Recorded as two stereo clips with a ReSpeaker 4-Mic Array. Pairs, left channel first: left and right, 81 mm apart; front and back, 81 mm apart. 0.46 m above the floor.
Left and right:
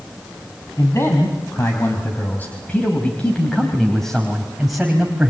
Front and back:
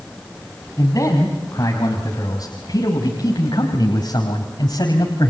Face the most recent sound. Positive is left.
turn(degrees=-15)